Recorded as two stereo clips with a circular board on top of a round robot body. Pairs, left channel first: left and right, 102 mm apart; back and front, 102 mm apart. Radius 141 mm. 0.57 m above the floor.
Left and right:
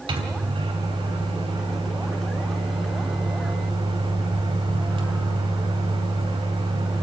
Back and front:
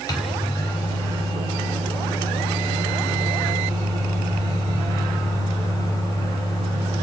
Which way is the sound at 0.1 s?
125° right.